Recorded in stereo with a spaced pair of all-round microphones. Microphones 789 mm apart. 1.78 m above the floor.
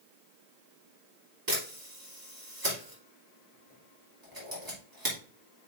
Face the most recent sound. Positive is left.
turn(degrees=-25)  # may be behind; listen again after turning